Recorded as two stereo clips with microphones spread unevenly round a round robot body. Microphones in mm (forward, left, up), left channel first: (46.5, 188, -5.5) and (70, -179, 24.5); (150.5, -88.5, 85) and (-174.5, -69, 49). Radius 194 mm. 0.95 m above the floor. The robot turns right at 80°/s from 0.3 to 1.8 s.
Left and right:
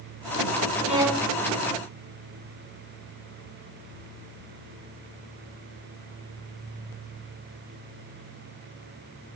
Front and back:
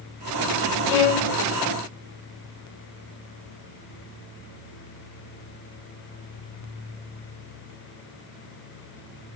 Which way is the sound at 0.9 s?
20° right.